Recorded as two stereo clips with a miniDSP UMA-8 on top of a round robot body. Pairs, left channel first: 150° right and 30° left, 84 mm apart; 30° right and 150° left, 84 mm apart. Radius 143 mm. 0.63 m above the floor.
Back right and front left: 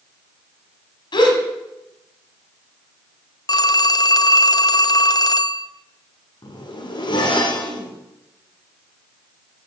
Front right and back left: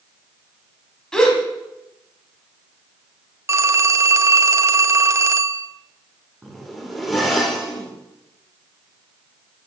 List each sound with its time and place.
1.1 s a gasp: 115° right, 1.7 m
3.5 s a phone ringing: 165° right, 0.7 m
6.4 s a zipper: 120° right, 2.0 m